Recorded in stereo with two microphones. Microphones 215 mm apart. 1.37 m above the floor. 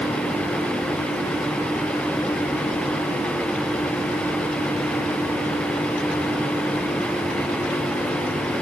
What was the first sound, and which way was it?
Only background noise.